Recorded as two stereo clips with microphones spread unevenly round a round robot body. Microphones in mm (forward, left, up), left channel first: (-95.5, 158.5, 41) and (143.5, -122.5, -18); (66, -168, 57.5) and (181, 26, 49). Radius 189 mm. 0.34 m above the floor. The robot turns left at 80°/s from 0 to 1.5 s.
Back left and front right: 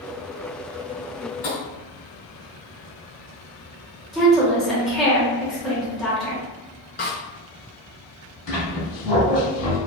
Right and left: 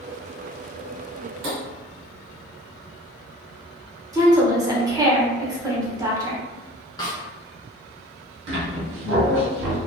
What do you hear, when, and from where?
1.4 s tapping: 70° left, 1.2 m; by 1.6 s 65° left, 1.2 m
4.1 s a woman speaking: 20° left, 0.9 m
7.0 s a snare drum: 175° right, 0.6 m
8.5 s a squeak: 60° left, 1.1 m